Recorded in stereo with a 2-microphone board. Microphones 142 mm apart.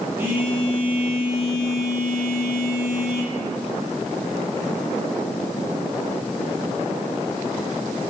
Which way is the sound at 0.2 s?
15° right (ahead or behind).